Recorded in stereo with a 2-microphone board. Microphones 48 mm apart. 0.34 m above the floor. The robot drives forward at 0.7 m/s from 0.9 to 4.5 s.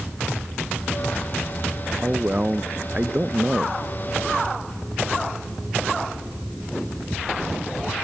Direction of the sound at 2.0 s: 30° right (ahead or behind).